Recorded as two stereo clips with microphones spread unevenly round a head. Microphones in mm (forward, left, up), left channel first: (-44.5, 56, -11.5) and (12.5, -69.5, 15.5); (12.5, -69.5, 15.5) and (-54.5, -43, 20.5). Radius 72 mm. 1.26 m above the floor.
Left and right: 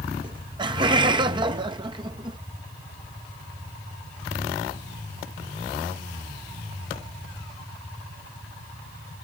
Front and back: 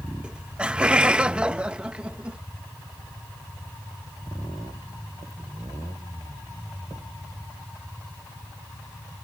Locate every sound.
0.2 s laughter: 125° right